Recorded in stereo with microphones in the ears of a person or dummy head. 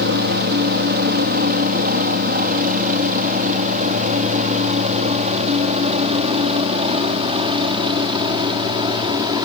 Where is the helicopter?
50° right (ahead or behind); by 9.4 s 20° right (ahead or behind).